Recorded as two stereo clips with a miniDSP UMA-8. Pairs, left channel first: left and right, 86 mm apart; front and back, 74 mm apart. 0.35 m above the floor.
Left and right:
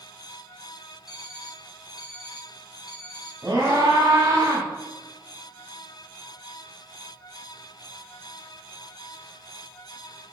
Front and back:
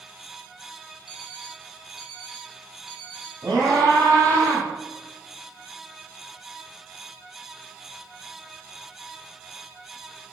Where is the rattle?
No rattle in this recording.